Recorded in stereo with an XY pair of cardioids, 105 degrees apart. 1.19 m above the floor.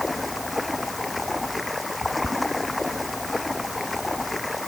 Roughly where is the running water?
Ahead.